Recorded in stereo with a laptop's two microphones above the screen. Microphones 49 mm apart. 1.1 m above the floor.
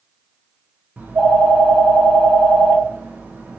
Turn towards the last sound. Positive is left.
turn(degrees=-35)  # may be behind; listen again after turning